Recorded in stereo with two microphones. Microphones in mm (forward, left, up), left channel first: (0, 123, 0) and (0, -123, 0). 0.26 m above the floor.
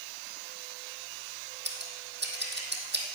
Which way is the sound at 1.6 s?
45° right (ahead or behind).